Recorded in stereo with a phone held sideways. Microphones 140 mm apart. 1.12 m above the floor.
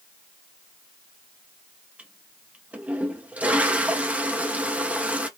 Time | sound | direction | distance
2.0 | a toilet flushing | 10° right (ahead or behind) | 0.6 m